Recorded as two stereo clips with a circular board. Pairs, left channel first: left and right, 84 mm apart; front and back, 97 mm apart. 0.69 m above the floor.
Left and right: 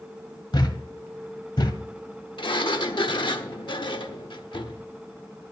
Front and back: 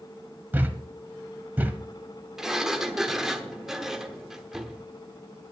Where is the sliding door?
95° left, 1.0 m.